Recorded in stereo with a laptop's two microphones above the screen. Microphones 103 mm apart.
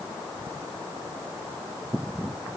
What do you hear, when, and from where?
Only background noise.